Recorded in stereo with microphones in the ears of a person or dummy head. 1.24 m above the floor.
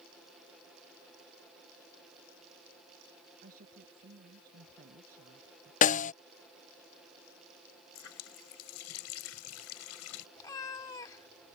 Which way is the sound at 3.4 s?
50° right (ahead or behind).